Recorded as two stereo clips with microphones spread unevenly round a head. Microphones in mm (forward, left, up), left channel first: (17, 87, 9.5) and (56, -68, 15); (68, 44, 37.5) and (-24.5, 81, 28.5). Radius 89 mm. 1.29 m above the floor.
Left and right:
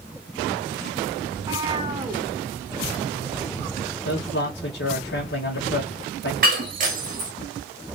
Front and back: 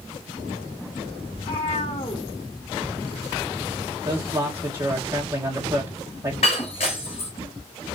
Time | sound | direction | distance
1.3 | a cat meowing | 15° right | 1.3 m
4.0 | a man speaking | 100° left | 1.3 m
6.4 | breaking glass | 55° right | 1.2 m